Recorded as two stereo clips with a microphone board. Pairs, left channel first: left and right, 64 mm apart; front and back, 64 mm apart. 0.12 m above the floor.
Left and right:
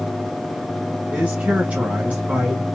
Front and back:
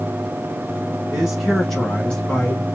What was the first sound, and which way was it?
A man speaking, 120° right.